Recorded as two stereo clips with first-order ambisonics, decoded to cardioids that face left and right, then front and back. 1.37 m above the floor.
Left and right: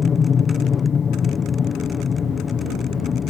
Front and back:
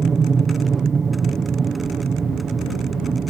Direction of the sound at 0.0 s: 135° left.